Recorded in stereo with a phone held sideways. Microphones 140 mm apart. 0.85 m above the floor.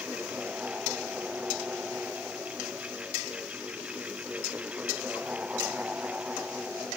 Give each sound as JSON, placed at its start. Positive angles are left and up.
{"t": 0.0, "sound": "a fan", "side_deg": -10}